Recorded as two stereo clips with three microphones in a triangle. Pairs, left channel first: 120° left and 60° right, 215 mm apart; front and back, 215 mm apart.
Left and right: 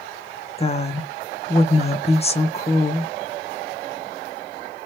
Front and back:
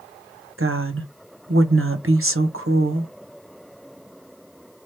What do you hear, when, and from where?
0.6 s a woman speaking: straight behind, 1.1 m